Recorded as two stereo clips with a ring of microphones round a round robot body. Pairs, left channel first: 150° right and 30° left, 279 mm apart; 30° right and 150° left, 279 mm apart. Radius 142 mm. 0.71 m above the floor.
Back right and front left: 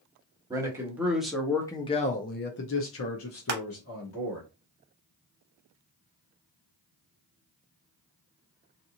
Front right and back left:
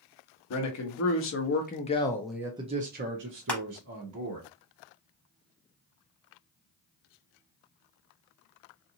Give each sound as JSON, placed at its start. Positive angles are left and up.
{"t": 0.5, "sound": "a man speaking", "azimuth_deg": -45, "distance_m": 1.2}
{"t": 3.5, "sound": "crushing", "azimuth_deg": 50, "distance_m": 0.6}